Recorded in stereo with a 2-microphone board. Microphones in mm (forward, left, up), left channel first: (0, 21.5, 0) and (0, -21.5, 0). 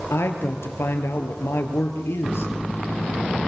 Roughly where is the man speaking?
Left.